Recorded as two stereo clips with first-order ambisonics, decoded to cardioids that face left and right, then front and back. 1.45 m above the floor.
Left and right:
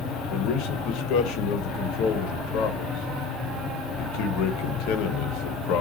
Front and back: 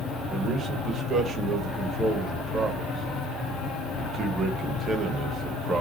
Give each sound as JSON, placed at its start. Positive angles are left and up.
{"t": 0.3, "sound": "a man speaking", "azimuth_deg": 110, "distance_m": 1.1}